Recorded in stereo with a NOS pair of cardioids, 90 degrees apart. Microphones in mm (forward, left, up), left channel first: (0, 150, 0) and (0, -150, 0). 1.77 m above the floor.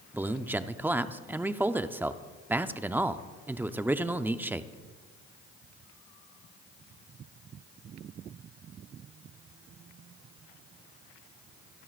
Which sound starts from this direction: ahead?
A man speaking, at 0.1 s.